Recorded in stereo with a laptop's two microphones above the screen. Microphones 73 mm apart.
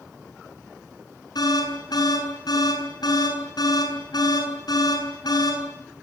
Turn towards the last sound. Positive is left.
turn(degrees=65)  # may be behind; listen again after turning